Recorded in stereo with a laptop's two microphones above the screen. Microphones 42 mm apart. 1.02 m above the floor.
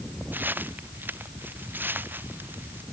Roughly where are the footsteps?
Right.